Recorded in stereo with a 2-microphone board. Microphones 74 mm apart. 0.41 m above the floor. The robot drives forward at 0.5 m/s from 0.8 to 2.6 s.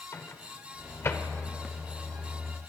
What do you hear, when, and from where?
0.1 s a microwave: 40° left (ahead or behind), 0.7 m; by 1.3 s 35° left (ahead or behind), 0.8 m